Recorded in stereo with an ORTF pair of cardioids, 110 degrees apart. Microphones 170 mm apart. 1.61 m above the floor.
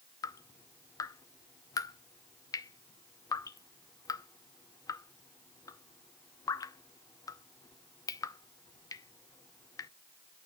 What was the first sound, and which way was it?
Dripping, 20° left.